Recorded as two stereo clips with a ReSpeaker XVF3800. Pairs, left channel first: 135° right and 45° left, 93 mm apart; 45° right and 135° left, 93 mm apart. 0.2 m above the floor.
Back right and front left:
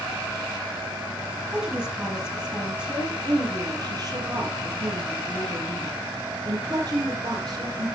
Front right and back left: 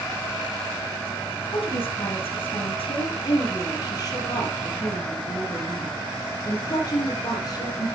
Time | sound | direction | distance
1.5 | a woman speaking | 30° right | 4.5 m
3.2 | a woman speaking | straight ahead | 4.5 m